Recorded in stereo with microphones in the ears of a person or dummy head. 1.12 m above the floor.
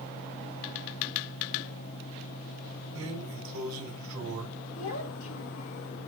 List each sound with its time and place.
3.0 s a drawer: 75° right (ahead or behind), 3 m
4.8 s a child speaking: 85° left, 2.5 m